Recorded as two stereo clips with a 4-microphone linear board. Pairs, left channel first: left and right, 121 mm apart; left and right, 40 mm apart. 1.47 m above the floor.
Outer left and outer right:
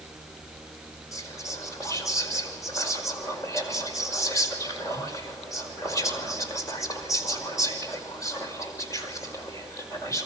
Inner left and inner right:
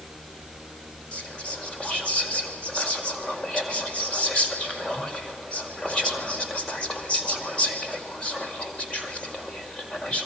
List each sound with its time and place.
1.1 s whispering: 30° left (ahead or behind), 5 m